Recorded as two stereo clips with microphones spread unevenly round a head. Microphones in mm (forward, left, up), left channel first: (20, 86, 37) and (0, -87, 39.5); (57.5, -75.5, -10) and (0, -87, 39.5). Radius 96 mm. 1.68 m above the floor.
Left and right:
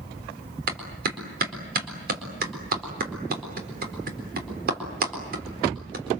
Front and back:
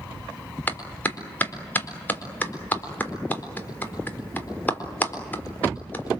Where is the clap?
60° right, 4 m.